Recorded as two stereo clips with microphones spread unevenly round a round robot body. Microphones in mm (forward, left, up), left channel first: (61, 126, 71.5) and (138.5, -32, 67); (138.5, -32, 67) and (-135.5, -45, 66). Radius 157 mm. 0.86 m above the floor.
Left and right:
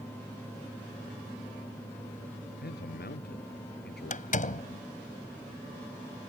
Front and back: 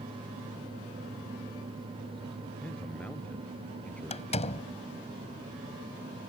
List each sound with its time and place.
2.6 s a man speaking: 90° left
4.1 s a door slam: 70° left